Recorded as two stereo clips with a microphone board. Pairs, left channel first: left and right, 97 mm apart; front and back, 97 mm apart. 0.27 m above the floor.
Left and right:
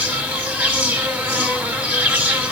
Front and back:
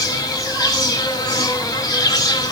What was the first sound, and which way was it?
An insect, 25° right.